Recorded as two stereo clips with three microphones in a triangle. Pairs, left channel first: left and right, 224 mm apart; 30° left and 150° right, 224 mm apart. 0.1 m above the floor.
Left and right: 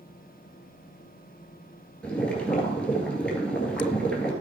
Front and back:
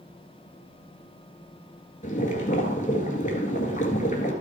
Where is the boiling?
10° left, 1.9 m.